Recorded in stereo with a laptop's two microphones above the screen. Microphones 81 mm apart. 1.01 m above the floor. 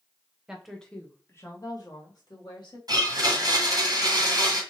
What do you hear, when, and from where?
0.5 s a woman speaking: 5° right (ahead or behind), 1.0 m; by 2.8 s 65° left (ahead or behind), 1.9 m
2.9 s a blender: 50° right (ahead or behind), 1.2 m